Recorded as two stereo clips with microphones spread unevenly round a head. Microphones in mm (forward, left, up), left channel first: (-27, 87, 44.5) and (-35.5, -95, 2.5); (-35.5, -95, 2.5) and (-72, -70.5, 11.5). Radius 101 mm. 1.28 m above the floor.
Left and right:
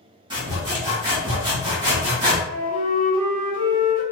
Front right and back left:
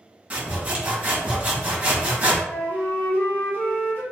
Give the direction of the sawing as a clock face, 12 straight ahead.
5 o'clock.